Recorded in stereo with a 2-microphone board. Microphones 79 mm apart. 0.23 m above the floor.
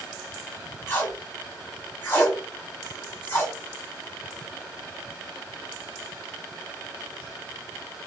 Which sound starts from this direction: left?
Tape being pulled, at 0.9 s.